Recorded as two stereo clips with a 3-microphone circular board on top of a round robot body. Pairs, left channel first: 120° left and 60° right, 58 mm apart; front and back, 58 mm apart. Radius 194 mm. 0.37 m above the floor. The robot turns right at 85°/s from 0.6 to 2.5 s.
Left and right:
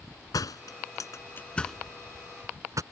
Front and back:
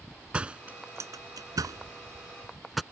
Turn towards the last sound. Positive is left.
turn(degrees=-90)